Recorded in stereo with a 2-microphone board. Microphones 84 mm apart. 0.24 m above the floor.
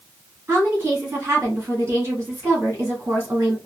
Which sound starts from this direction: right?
A woman speaking, at 0.5 s.